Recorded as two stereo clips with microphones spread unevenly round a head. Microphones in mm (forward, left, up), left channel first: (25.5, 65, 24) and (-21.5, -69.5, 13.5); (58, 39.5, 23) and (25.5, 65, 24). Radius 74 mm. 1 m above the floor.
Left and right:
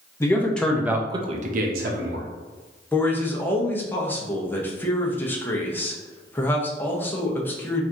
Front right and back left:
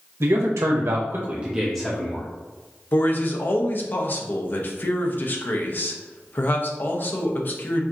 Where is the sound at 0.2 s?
145° left, 1.1 m; by 2.3 s 105° right, 1.1 m.